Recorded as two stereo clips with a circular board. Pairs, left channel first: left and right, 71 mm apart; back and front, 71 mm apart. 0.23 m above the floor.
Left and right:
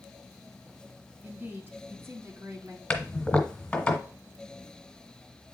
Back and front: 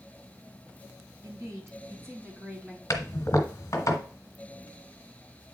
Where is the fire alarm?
No fire alarm in this recording.